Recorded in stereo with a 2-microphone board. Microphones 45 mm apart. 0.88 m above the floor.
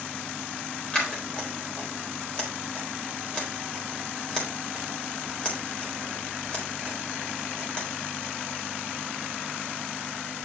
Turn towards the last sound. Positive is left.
turn(degrees=25)  # may be behind; listen again after turning